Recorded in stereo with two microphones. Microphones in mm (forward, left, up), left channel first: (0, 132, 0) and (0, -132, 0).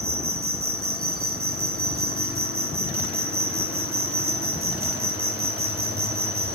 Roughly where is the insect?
Right.